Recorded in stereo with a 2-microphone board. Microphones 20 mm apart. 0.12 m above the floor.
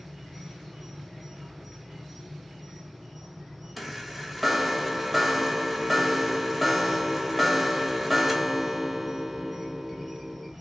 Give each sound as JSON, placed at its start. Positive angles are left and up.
{"t": 0.0, "sound": "an insect", "side_deg": 0, "distance_m": 1.7}
{"t": 3.8, "sound": "a chime", "side_deg": -5, "distance_m": 0.8}